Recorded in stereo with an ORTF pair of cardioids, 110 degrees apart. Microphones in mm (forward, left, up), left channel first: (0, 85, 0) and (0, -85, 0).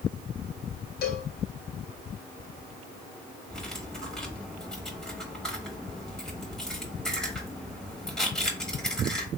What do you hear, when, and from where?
1.0 s a cowbell: 65° left, 0.7 m
3.5 s cutlery clinking: 5° left, 1.3 m